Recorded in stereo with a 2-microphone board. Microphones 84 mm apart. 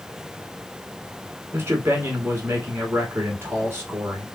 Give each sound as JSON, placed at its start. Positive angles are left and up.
{"t": 1.5, "sound": "a man speaking", "side_deg": -30, "distance_m": 1.2}